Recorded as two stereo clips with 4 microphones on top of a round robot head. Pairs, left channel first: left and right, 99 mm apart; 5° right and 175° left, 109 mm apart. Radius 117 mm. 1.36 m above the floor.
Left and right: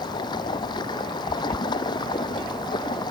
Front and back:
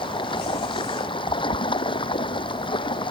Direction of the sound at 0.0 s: 35° left.